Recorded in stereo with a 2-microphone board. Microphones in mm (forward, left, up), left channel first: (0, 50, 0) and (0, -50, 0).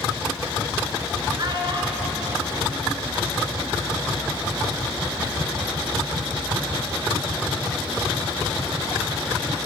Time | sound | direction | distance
1.4 | a child speaking | 40° right (ahead or behind) | 1.1 m